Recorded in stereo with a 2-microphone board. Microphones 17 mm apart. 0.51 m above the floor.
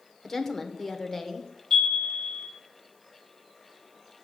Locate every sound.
0.2 s a woman speaking: 20° left (ahead or behind), 1.2 m
1.7 s a chime: 45° left (ahead or behind), 3.5 m